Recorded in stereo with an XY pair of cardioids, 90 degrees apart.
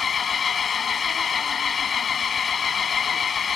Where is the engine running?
50° left.